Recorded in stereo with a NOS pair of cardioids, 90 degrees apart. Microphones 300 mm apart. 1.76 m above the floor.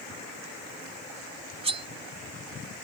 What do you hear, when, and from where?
1.6 s cutlery clinking: 20° right